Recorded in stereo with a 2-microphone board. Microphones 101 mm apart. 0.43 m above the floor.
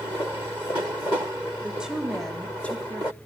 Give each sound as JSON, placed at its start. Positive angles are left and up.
{"t": 1.6, "sound": "a woman speaking", "side_deg": -15, "distance_m": 1.8}